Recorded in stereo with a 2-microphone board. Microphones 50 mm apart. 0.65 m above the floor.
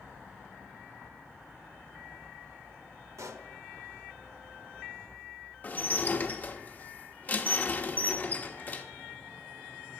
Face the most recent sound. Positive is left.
turn(degrees=35)  # may be behind; listen again after turning